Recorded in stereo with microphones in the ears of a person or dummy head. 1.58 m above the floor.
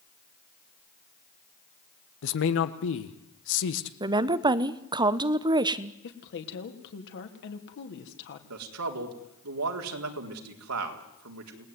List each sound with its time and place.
2.2 s a man speaking: 70° left (ahead or behind), 1.7 m
4.0 s a woman speaking: 20° right (ahead or behind), 1.0 m
6.0 s a woman speaking: 60° left (ahead or behind), 3 m
8.5 s a man speaking: 85° right, 4 m